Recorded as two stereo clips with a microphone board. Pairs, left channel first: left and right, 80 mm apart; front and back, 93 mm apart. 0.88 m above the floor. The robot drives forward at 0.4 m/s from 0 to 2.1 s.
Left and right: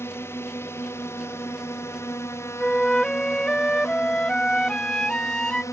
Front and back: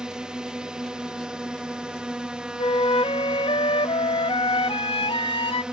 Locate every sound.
0.0 s a drone: 105° left
2.6 s a flute: 10° left